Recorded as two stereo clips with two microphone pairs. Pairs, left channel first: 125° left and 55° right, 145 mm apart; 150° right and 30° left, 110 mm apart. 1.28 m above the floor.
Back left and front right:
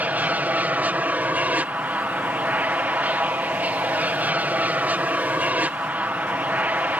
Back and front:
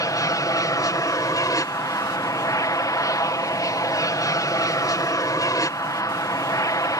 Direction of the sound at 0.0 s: 125° right.